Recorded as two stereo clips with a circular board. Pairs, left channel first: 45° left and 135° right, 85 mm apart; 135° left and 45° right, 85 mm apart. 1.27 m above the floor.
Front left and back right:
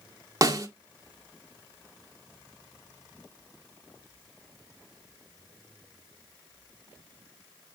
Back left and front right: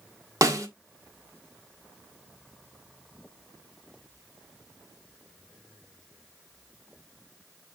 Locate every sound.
0.4 s a snare drum: 90° right, 1.6 m